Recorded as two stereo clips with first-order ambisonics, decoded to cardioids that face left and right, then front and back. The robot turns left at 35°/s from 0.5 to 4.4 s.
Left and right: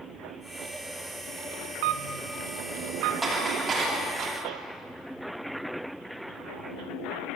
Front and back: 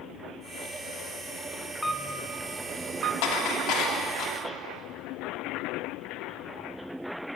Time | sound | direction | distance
1.8 | a camera shutter | 85° right | 0.9 m
3.2 | dishes clattering | 10° right | 3 m